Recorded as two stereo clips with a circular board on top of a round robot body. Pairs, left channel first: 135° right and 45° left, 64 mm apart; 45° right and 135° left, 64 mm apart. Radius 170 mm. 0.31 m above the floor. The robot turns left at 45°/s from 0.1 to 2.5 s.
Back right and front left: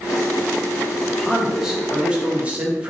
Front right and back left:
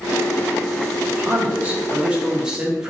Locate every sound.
1.1 s a man speaking: 135° left, 1.0 m; by 2.9 s 75° left, 1.0 m